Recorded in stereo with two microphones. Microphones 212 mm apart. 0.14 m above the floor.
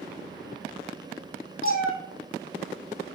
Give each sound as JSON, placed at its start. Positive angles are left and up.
{"t": 1.6, "sound": "a cat meowing", "side_deg": 80, "distance_m": 1.6}